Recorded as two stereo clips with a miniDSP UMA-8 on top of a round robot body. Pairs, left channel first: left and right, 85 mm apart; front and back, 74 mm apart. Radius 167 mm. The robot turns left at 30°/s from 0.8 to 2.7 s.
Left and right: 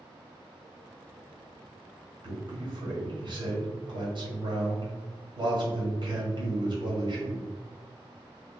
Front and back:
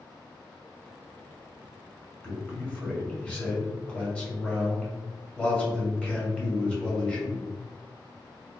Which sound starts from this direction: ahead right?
A man speaking, at 2.2 s.